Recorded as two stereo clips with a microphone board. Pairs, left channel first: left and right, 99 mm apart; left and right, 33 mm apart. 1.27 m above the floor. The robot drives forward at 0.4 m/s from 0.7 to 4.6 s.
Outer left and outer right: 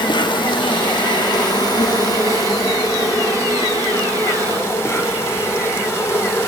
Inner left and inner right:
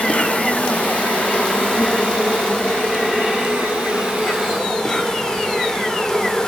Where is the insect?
50° left (ahead or behind), 1.7 m; by 6.5 s 25° left (ahead or behind), 3 m.